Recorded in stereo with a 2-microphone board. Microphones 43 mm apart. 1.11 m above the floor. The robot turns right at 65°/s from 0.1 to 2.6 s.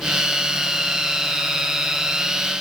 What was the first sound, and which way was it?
Only background noise.